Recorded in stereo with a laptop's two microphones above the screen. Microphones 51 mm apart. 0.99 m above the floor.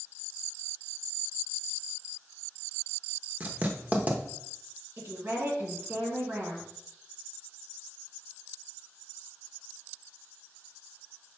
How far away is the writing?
About 0.7 m.